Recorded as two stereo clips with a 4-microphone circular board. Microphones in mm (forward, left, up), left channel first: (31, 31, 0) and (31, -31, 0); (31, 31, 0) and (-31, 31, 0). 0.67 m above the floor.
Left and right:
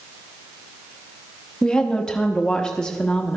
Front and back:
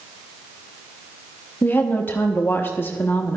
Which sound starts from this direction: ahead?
A woman speaking, at 1.6 s.